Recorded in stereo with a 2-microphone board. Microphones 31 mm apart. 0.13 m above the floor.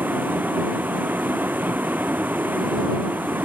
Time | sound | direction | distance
0.0 | a vehicle | 75° right (ahead or behind) | ?